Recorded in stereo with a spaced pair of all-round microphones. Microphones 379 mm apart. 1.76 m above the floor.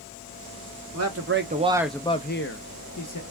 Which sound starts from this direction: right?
A man speaking, at 0.9 s.